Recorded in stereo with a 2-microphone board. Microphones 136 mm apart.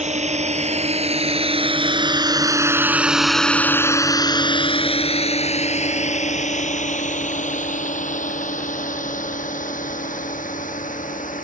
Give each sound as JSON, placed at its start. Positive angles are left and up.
{"t": 0.0, "sound": "a drone", "side_deg": -60}